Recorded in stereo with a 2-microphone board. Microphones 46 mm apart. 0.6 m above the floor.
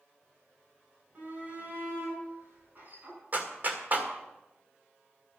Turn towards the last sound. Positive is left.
turn(degrees=-40)  # may be behind; listen again after turning